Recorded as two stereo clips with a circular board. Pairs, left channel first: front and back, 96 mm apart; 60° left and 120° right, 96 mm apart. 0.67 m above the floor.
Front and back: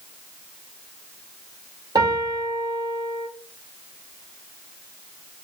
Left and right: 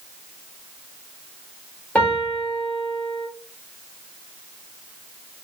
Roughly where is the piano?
Behind left.